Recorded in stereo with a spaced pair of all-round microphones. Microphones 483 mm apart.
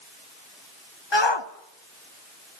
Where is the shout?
60° left (ahead or behind), 1.4 m.